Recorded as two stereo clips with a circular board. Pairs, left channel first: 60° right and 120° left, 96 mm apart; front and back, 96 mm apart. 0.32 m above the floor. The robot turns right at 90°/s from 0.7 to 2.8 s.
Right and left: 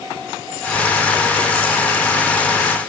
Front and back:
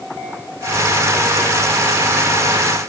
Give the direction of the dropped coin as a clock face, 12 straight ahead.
No dropped coin in this recording.